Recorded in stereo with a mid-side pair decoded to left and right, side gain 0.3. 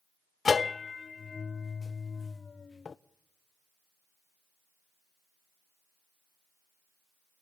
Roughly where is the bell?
Ahead left.